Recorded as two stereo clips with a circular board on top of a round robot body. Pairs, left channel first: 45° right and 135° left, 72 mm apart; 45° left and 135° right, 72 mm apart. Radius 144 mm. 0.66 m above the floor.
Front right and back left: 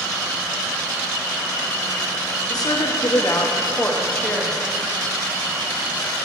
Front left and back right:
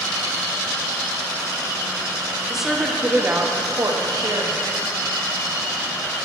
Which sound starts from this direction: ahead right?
A woman speaking, at 2.5 s.